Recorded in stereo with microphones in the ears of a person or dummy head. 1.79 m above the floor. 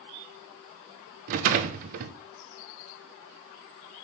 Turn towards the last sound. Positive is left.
turn(degrees=-45)  # may be behind; listen again after turning